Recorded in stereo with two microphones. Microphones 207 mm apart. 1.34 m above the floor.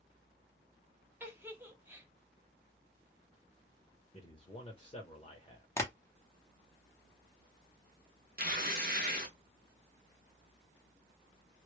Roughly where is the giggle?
Centre.